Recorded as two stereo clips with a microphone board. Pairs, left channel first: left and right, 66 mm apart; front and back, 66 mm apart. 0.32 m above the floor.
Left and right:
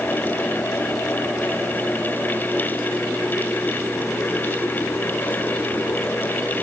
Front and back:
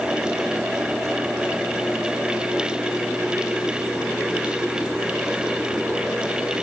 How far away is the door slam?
I don't hear a door slam.